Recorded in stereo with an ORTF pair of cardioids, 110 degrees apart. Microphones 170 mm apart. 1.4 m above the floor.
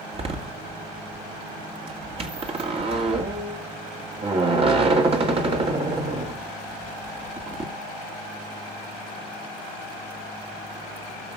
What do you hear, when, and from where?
0.1 s a door slam: 35° right, 2 m